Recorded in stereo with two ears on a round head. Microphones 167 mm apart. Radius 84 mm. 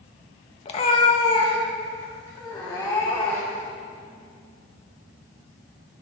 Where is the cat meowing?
30° left (ahead or behind), 0.9 m; by 3.7 s 15° left (ahead or behind), 3 m.